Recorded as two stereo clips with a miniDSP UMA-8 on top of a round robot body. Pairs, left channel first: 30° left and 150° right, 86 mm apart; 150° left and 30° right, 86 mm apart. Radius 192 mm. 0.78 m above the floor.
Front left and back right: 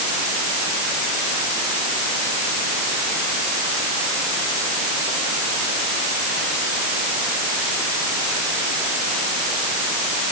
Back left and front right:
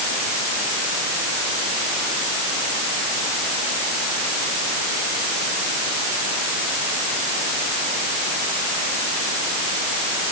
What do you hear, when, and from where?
Only background noise.